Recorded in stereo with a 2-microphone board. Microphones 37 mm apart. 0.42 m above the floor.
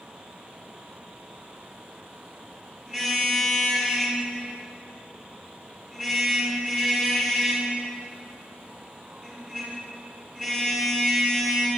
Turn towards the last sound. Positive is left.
turn(degrees=-15)  # may be behind; listen again after turning